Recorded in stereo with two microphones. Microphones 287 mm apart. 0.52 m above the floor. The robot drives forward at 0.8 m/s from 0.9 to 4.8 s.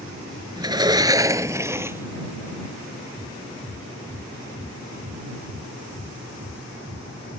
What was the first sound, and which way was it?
A sliding door, 15° right (ahead or behind).